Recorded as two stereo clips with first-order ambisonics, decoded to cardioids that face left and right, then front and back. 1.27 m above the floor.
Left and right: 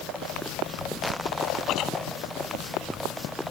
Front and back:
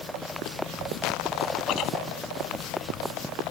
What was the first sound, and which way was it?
Chewing, 45° left.